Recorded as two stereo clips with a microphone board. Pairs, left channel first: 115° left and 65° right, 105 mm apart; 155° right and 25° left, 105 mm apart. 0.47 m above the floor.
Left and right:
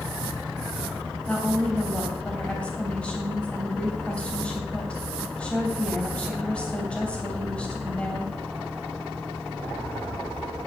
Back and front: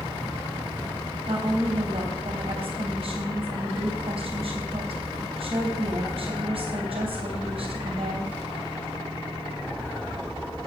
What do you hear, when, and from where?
1.3 s a woman speaking: 35° left, 3 m